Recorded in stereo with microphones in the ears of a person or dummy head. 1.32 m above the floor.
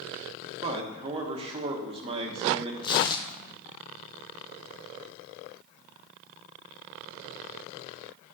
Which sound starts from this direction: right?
A man speaking, at 0.6 s.